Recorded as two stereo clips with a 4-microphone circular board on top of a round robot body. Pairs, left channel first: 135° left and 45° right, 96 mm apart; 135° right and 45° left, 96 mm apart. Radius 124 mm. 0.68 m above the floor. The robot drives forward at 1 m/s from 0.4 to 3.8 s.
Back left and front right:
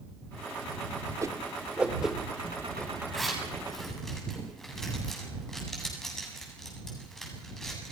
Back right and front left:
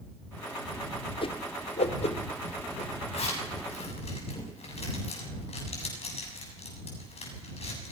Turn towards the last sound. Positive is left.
turn(degrees=-140)